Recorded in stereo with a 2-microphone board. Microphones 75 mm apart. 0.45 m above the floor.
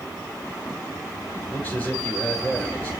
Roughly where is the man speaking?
Left.